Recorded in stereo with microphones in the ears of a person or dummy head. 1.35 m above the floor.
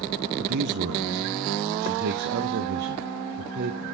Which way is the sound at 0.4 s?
70° right (ahead or behind).